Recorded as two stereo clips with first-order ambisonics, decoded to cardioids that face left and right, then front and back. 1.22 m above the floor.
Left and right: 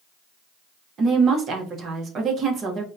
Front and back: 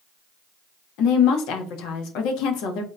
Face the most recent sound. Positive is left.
turn(degrees=-30)